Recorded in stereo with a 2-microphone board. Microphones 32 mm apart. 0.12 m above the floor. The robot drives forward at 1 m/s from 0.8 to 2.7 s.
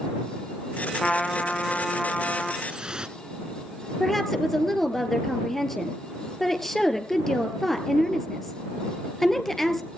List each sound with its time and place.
1.0 s a trumpet: 25° left (ahead or behind), 2 m; by 2.5 s 15° left (ahead or behind), 3.5 m
2.6 s dripping: 25° right (ahead or behind), 1.2 m
4.0 s a woman speaking: 5° left (ahead or behind), 2 m